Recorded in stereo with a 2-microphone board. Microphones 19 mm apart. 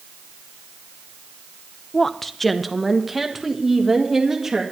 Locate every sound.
1.9 s a woman speaking: 25° left (ahead or behind), 0.7 m; by 4.6 s 20° right (ahead or behind), 1.9 m